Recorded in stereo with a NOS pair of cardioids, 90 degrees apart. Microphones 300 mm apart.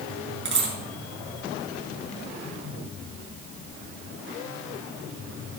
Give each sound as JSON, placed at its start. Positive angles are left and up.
{"t": 0.5, "sound": "a dropped coin", "azimuth_deg": -40, "distance_m": 8.0}